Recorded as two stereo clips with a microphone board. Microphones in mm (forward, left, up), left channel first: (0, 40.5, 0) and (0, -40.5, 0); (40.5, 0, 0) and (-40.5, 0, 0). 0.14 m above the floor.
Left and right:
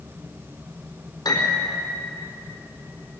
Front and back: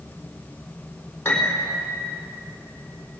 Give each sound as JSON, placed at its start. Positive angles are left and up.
{"t": 1.2, "sound": "a piano", "azimuth_deg": 65, "distance_m": 4.5}